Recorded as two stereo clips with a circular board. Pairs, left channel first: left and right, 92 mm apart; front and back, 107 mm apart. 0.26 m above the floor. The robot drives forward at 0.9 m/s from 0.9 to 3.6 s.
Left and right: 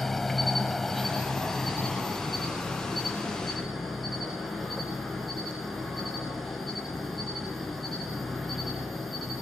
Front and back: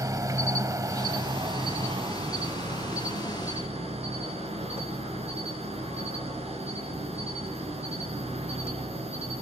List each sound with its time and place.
0.0 s an insect: 175° left, 1.3 m; by 9.4 s straight behind, 3.5 m